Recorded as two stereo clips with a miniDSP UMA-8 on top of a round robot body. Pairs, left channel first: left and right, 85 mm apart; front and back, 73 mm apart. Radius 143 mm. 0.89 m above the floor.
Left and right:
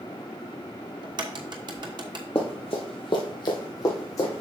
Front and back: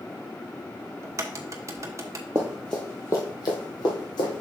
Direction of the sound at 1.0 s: 125° right.